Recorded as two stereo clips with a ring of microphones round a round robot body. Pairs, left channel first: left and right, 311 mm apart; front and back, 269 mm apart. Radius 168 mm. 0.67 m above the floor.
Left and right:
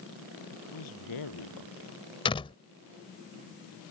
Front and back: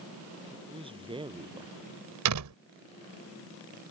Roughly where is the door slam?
Behind.